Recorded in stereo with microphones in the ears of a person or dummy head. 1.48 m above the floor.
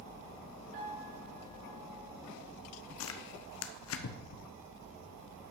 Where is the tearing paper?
70° left (ahead or behind), 1.0 m.